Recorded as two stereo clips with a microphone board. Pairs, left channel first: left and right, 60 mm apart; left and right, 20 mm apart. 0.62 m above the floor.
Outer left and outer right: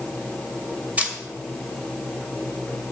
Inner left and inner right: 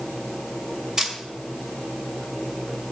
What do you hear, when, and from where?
1.0 s a camera shutter: 25° right (ahead or behind), 1.8 m